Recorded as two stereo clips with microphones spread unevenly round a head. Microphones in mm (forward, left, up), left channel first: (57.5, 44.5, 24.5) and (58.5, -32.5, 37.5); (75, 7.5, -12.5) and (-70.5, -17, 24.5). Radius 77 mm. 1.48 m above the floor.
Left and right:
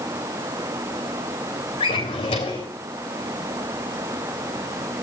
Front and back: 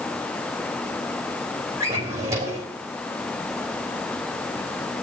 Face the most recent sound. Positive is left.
turn(degrees=125)